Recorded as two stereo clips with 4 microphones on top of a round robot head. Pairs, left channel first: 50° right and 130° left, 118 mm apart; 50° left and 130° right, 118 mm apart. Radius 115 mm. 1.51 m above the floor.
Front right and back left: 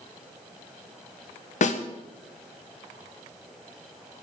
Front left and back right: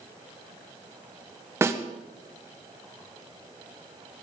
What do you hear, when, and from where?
1.6 s a snare drum: 60° right, 1.8 m